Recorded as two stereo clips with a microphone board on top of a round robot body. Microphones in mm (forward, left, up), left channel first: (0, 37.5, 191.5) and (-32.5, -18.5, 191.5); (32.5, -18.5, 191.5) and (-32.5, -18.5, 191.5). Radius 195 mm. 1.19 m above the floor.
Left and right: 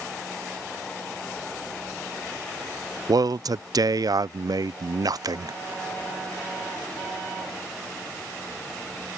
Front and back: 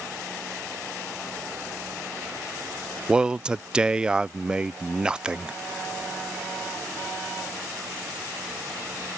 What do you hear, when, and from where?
3.1 s a man speaking: 105° right